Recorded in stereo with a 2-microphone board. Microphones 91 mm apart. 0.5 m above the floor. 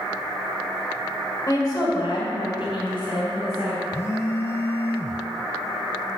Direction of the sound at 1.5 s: 40° left (ahead or behind).